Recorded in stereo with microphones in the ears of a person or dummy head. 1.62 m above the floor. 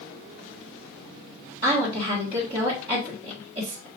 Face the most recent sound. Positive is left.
turn(degrees=-30)  # may be behind; listen again after turning